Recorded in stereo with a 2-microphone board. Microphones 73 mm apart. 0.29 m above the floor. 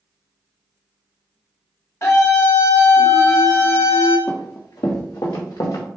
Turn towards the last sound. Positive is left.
turn(degrees=70)  # may be behind; listen again after turning